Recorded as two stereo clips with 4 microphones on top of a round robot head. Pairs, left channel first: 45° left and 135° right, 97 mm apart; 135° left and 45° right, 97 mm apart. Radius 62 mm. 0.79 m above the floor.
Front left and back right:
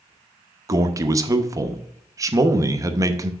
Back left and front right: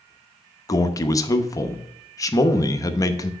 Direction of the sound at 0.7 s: Straight behind.